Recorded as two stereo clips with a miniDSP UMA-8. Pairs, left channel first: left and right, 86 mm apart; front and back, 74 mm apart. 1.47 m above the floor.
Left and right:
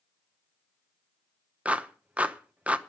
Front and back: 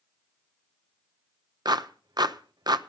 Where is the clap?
165° right, 0.8 m.